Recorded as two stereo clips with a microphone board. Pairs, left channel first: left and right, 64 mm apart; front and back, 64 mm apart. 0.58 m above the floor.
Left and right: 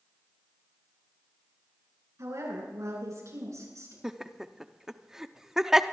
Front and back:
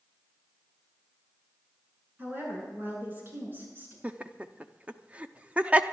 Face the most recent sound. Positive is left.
turn(degrees=-160)